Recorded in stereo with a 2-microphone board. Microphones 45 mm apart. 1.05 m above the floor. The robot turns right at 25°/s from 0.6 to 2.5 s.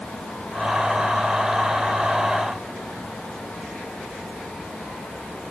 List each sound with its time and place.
Only background noise.